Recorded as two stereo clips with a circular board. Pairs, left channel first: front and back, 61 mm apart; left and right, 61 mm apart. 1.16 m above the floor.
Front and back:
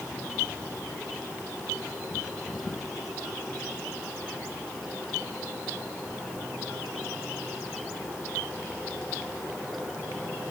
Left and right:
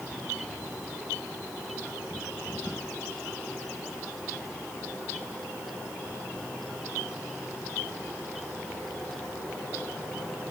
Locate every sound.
Only background noise.